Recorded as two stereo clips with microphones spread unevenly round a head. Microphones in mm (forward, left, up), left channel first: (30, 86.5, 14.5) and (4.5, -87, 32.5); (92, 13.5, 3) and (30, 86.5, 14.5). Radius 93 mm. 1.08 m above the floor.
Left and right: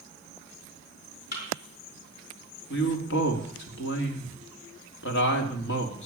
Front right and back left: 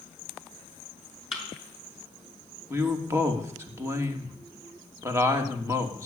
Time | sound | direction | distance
1.3 | a thud | 45° left | 6 m
2.7 | a woman speaking | 70° left | 2.5 m